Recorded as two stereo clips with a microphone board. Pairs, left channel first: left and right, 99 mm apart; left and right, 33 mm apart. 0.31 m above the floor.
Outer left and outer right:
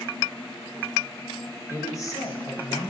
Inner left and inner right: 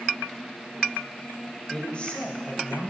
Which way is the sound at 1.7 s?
30° left (ahead or behind).